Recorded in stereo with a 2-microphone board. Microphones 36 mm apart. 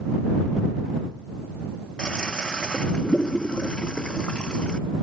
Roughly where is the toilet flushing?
Left.